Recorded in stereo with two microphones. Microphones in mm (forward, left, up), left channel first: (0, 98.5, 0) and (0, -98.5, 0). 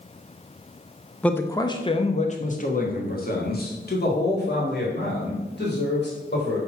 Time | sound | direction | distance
1.2 | a man speaking | 5° left (ahead or behind) | 0.7 m